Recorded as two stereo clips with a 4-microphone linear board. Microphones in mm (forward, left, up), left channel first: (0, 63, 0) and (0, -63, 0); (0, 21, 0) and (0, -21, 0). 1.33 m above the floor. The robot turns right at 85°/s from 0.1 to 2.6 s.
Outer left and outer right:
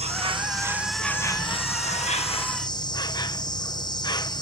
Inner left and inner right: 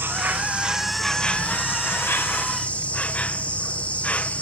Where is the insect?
70° right; by 4.4 s 140° left.